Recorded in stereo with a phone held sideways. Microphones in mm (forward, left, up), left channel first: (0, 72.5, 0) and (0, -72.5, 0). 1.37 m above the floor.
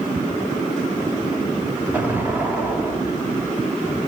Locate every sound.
1.9 s an explosion: 15° right (ahead or behind), 1.7 m